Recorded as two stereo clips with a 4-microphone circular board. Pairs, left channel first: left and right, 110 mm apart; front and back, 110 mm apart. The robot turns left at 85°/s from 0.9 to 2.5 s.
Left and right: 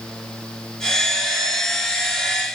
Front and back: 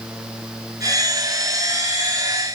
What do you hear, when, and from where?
Only background noise.